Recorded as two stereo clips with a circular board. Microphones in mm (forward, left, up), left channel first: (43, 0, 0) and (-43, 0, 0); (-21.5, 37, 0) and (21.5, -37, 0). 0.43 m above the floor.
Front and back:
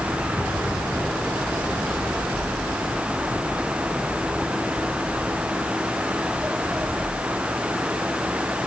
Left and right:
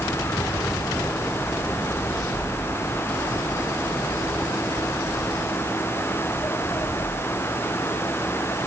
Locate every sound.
Only background noise.